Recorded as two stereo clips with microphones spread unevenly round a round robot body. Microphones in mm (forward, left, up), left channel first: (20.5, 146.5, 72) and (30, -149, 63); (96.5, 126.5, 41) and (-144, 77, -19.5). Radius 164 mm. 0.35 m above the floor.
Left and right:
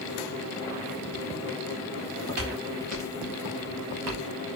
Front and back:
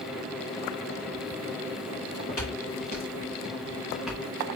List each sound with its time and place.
1.9 s footsteps: 50° right, 3.5 m; by 4.2 s 80° right, 1.8 m